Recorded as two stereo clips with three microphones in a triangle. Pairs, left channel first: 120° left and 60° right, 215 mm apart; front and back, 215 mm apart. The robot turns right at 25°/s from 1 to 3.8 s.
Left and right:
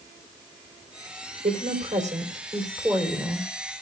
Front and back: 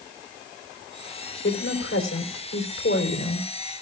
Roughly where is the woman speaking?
Ahead.